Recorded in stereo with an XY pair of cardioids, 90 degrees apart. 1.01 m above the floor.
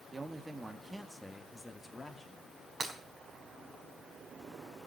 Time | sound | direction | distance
0.1 | a man speaking | 35° right | 1.6 m
2.8 | breaking glass | 35° right | 4 m